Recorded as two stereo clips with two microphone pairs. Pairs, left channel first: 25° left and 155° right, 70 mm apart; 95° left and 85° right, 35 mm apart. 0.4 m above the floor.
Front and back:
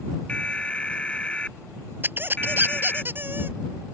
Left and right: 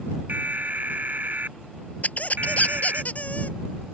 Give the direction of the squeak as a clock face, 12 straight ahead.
7 o'clock.